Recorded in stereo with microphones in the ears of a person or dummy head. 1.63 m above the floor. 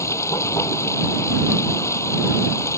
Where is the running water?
15° left (ahead or behind).